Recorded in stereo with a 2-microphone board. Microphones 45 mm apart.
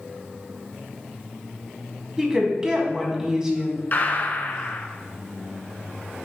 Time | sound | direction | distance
2.2 | a woman speaking | 15° right (ahead or behind) | 1.8 m
3.9 | a gunshot | 40° left (ahead or behind) | 0.6 m